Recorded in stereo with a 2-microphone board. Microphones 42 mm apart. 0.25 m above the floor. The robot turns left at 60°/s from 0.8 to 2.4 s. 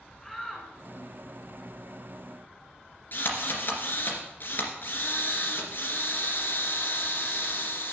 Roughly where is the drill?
Left.